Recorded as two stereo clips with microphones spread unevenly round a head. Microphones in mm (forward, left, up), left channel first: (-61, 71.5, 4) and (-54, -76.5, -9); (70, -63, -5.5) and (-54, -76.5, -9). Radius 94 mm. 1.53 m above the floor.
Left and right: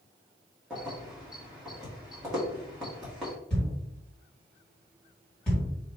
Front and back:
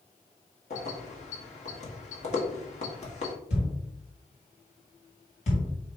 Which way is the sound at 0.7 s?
Straight ahead.